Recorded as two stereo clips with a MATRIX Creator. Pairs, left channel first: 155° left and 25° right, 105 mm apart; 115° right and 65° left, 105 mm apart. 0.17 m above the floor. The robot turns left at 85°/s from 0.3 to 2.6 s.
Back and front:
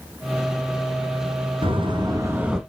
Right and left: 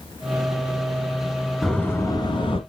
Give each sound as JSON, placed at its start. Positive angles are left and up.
{"t": 1.6, "sound": "a door slam", "azimuth_deg": -25, "distance_m": 1.8}